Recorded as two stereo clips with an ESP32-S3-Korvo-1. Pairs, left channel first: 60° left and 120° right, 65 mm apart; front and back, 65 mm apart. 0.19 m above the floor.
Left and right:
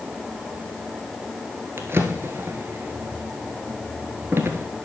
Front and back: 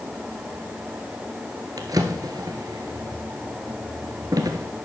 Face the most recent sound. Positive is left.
turn(degrees=-170)